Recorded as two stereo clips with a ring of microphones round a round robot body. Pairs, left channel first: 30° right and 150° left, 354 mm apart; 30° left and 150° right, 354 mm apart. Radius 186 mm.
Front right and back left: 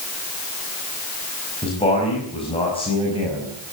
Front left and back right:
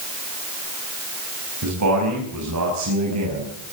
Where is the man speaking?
105° right, 5.5 m.